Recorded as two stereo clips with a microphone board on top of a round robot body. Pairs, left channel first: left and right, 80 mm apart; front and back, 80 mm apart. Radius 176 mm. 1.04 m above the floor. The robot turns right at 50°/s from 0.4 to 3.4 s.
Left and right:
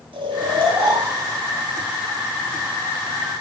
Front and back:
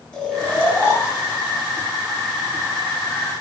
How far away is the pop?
I don't hear a pop.